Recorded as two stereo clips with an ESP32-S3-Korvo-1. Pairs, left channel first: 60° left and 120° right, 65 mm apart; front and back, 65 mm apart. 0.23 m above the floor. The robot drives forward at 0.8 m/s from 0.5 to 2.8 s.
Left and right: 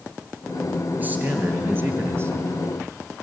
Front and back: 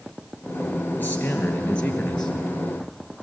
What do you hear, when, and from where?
1.0 s a man speaking: 55° right, 3.5 m; by 2.3 s 75° right, 3 m